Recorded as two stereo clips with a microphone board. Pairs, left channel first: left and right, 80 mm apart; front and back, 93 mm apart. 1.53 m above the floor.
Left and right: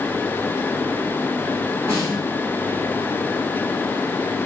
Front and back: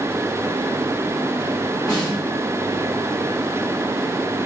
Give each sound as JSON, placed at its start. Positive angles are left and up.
{"t": 1.9, "sound": "a snare drum", "azimuth_deg": -45, "distance_m": 1.7}